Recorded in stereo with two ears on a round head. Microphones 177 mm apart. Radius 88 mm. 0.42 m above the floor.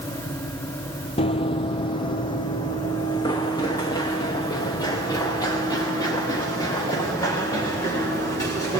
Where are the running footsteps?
30° left (ahead or behind), 0.6 m; by 8.8 s 15° left (ahead or behind), 4.5 m.